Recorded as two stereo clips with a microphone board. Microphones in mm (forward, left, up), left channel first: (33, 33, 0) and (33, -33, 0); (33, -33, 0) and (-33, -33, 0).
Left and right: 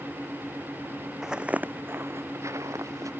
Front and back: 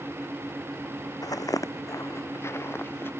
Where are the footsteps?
5° right; by 3.1 s 55° right.